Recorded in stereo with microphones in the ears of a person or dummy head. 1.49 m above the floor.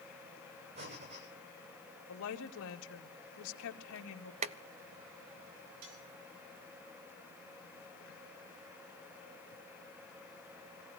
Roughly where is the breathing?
Right.